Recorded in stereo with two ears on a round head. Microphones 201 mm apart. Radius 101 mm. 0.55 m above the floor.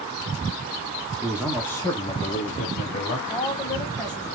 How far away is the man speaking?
About 0.9 m.